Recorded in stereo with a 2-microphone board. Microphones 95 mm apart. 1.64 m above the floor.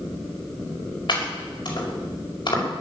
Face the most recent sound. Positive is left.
turn(degrees=55)  # may be behind; listen again after turning